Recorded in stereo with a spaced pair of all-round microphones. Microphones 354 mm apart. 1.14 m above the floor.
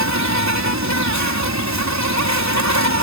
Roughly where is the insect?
Right.